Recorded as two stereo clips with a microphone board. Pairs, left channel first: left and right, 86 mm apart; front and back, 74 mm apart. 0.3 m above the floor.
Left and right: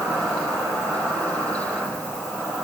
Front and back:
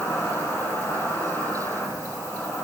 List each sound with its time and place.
0.0 s an insect: 15° right, 1.2 m